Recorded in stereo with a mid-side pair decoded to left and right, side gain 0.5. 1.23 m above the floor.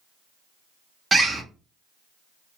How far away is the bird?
About 0.8 m.